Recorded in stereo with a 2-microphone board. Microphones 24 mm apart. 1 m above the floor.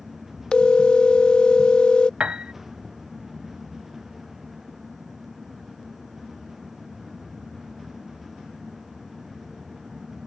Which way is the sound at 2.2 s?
50° right (ahead or behind).